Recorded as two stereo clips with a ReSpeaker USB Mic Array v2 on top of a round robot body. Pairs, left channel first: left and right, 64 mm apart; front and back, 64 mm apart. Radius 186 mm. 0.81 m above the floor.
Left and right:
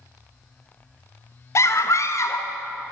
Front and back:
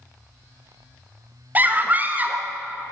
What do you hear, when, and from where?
1.6 s a scream: 120° left, 1.6 m